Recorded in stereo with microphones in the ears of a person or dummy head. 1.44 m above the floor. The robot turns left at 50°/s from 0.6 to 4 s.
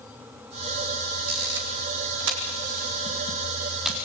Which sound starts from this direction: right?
A camera shutter, at 1.3 s.